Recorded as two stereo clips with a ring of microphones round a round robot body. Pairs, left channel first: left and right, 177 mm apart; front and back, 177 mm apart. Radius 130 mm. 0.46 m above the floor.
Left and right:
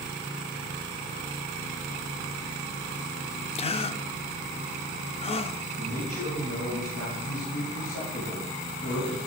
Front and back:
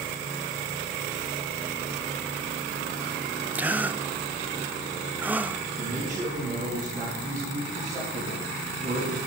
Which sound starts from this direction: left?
A gasp, at 3.5 s.